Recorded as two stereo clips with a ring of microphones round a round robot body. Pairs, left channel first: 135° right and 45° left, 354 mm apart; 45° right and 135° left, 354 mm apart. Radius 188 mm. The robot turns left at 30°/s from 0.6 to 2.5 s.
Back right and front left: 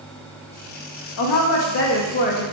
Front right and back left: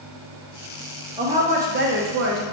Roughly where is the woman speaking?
Behind right.